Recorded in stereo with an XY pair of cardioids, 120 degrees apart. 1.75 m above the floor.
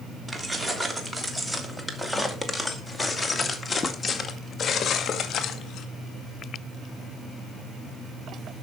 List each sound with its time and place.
0.3 s keys jangling: 15° right, 3 m; by 5.9 s 65° left, 2 m